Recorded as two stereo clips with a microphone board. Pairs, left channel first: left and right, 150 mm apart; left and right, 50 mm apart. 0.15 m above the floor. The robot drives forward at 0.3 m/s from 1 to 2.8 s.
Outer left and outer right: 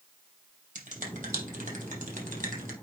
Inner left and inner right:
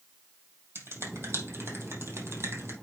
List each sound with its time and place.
0.8 s a finger snap: 60° right (ahead or behind), 3.5 m; by 2.7 s 70° right (ahead or behind), 3.5 m